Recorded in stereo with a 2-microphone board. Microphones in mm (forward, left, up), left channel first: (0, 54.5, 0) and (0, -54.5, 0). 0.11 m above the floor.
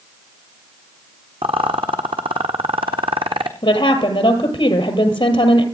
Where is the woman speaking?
50° left (ahead or behind), 2 m.